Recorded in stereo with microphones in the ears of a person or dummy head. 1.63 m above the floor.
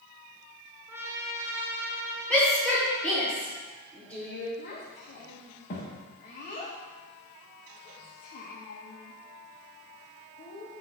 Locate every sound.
0.9 s a trumpet: 10° right (ahead or behind), 0.9 m
2.3 s a shout: 10° left (ahead or behind), 1.5 m
4.6 s a child speaking: 35° left (ahead or behind), 0.9 m